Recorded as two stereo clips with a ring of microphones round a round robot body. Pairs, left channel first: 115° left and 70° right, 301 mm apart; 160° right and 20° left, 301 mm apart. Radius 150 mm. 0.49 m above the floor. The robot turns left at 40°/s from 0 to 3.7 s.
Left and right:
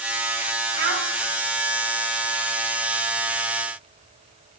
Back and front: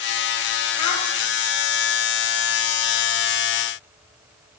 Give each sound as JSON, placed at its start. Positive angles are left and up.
{"t": 0.8, "sound": "a child speaking", "azimuth_deg": -110, "distance_m": 1.8}